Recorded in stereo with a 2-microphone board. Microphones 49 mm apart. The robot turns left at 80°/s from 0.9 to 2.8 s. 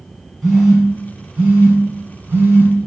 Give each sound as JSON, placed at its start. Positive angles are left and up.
{"t": 0.4, "sound": "a phone buzzing", "side_deg": 10, "distance_m": 1.3}